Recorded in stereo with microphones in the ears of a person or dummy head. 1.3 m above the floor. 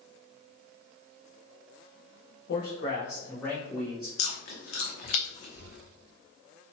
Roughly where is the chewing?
Left.